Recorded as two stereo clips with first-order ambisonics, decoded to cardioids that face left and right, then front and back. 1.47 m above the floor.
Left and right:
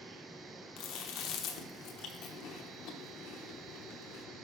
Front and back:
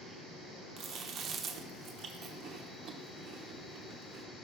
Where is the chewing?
120° left, 0.8 m.